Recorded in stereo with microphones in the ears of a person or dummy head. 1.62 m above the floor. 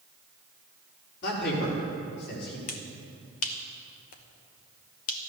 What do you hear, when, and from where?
1.2 s a man speaking: 60° left (ahead or behind), 4.5 m
2.7 s a finger snap: 45° left (ahead or behind), 1.1 m